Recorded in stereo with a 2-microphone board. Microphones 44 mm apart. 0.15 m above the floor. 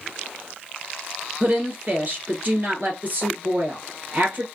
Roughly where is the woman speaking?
Right.